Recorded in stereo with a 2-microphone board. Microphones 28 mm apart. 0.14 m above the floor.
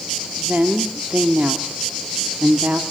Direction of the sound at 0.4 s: 65° right (ahead or behind).